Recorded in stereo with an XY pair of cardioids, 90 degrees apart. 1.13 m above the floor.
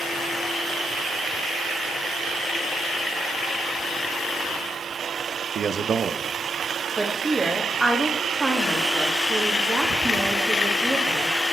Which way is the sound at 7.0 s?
20° right.